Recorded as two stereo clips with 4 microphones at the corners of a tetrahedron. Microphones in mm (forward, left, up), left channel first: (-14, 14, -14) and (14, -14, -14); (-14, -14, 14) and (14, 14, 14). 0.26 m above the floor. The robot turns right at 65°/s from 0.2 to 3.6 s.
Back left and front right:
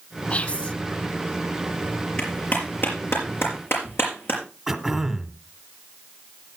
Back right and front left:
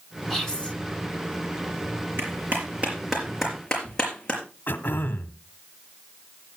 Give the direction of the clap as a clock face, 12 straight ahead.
10 o'clock.